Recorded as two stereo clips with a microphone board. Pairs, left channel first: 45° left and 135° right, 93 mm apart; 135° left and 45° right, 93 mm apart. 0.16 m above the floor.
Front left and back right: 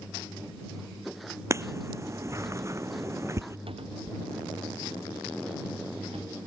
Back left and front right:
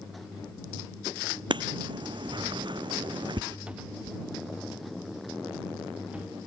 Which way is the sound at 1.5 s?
75° right.